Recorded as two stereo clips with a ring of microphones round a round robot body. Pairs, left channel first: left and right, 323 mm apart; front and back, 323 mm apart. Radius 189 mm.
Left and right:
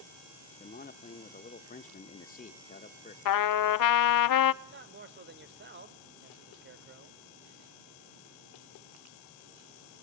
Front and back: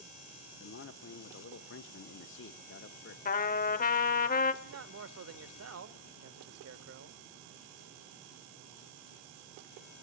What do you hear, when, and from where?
0.6 s a man speaking: 35° left, 1.1 m
3.2 s a trumpet: 65° left, 0.7 m
4.6 s a man speaking: 145° right, 1.5 m